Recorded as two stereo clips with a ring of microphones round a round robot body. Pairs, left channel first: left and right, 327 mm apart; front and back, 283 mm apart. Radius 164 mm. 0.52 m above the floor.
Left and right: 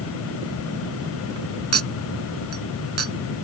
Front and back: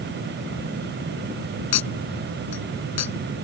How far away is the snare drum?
I don't hear a snare drum.